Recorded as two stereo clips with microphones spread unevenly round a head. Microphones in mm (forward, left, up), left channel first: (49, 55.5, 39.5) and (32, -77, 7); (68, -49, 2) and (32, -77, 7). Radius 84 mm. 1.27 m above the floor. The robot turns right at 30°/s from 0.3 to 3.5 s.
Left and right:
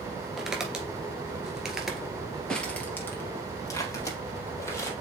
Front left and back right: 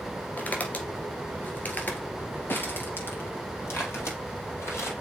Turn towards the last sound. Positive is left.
turn(degrees=25)